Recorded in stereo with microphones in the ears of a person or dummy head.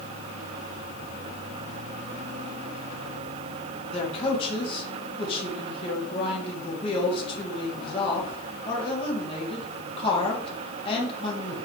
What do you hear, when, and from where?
3.9 s a man speaking: 35° left (ahead or behind), 3.5 m